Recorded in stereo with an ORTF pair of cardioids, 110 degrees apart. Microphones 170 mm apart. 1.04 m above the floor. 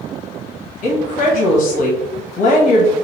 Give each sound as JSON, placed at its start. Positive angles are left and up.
{"t": 0.8, "sound": "a woman speaking", "azimuth_deg": 55, "distance_m": 1.0}